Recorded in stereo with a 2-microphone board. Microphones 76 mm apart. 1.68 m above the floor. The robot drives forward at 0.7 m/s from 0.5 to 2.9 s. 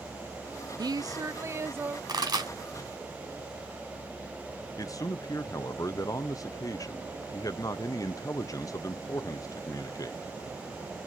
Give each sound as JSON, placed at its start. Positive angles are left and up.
{"t": 0.8, "sound": "a woman speaking", "side_deg": -65, "distance_m": 0.6}
{"t": 2.1, "sound": "a pop", "side_deg": -65, "distance_m": 3.0}
{"t": 4.8, "sound": "a man speaking", "side_deg": 50, "distance_m": 0.6}